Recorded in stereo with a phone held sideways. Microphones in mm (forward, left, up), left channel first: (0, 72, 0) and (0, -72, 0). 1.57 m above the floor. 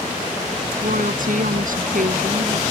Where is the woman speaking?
70° right (ahead or behind).